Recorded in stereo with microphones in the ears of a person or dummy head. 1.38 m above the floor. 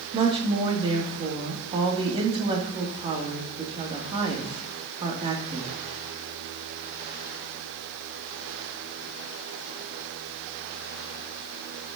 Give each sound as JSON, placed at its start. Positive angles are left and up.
{"t": 0.1, "sound": "a woman speaking", "side_deg": -25, "distance_m": 2.5}